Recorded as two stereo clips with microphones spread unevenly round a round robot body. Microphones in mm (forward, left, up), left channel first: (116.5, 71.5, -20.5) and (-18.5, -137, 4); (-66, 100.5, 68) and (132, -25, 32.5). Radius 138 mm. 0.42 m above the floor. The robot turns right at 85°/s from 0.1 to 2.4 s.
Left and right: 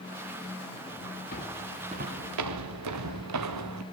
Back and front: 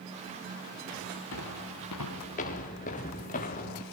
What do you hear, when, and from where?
1.3 s footsteps: 120° left, 5 m; by 3.8 s 150° right, 2.5 m